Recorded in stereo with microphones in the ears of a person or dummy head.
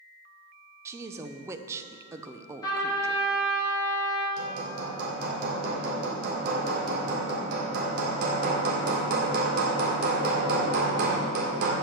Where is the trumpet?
25° left (ahead or behind), 2.5 m.